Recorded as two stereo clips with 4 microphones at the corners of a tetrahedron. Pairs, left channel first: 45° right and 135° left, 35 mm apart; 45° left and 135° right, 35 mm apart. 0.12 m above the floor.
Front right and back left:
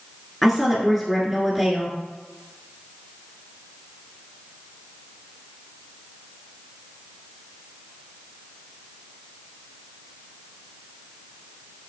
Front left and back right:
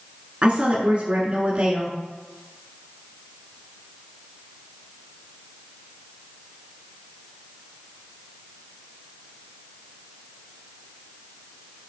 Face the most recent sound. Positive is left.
turn(degrees=-135)